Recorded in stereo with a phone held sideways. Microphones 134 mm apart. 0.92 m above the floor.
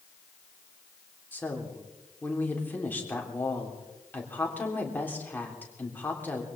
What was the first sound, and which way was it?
A woman speaking, 15° left (ahead or behind).